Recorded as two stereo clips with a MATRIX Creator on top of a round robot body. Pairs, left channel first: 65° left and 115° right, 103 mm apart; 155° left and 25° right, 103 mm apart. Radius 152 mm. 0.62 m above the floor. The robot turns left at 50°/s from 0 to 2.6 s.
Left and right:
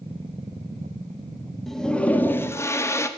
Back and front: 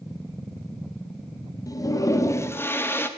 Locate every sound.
1.7 s a toilet flushing: 155° left, 0.9 m; by 3.1 s 105° left, 0.9 m